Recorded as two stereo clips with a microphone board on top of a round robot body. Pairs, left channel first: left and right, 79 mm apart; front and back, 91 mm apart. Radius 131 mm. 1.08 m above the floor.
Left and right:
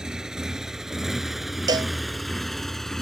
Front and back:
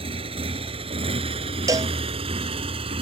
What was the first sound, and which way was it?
A motorcycle, 175° right.